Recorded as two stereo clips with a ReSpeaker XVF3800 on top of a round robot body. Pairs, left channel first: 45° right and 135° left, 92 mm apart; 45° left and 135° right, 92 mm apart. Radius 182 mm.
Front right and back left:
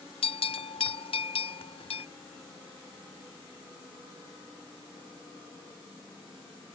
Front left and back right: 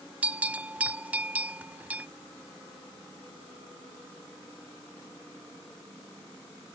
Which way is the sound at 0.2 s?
60° right.